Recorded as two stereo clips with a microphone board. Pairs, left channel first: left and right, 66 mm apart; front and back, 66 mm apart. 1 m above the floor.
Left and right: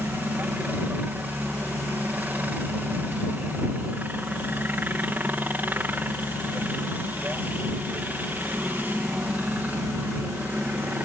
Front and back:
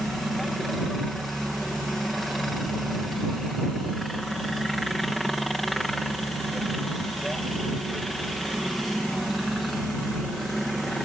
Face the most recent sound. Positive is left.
turn(degrees=-85)